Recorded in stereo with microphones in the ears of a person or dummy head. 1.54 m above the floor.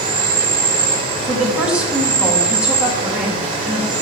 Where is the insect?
30° right (ahead or behind), 2 m.